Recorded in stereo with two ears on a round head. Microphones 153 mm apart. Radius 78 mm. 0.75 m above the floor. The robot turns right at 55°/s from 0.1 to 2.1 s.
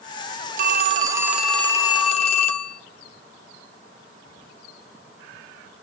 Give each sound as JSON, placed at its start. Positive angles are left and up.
{"t": 0.6, "sound": "a phone ringing", "azimuth_deg": -50, "distance_m": 1.0}